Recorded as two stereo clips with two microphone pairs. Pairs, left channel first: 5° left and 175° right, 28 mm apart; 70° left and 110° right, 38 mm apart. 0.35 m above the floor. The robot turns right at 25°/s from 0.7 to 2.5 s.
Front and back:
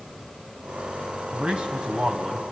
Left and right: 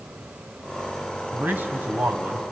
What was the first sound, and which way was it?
A man speaking, 140° right.